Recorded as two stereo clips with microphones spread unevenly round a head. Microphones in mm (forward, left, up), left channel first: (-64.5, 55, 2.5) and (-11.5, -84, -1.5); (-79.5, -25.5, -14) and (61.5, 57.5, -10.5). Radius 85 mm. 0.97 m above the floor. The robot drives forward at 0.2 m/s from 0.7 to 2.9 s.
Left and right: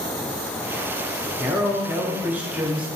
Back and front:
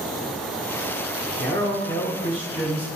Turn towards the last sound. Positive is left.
turn(degrees=-145)